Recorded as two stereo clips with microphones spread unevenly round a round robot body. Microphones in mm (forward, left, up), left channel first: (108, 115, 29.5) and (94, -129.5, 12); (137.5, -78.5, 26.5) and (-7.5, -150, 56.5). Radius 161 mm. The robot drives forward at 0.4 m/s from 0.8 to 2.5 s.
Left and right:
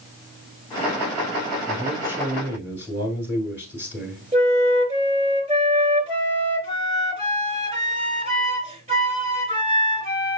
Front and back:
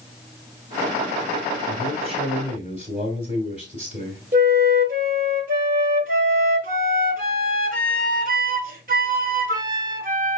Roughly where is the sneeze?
I don't hear a sneeze.